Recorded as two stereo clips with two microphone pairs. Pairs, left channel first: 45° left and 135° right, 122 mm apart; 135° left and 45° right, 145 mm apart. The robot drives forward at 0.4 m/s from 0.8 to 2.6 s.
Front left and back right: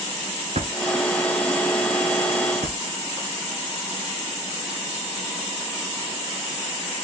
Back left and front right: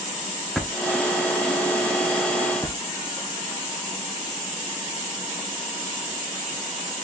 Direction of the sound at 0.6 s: 135° right.